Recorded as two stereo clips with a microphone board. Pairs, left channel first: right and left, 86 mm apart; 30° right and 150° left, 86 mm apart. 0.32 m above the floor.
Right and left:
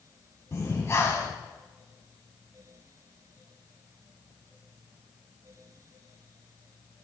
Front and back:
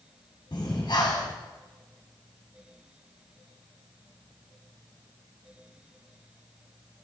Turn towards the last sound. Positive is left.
turn(degrees=-40)